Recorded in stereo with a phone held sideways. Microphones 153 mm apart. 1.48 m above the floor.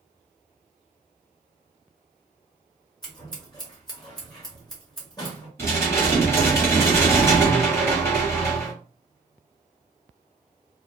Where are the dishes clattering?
15° left (ahead or behind), 1.2 m.